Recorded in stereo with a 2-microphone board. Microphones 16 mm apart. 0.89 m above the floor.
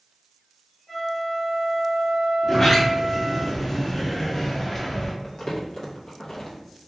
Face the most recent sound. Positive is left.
turn(degrees=50)  # may be behind; listen again after turning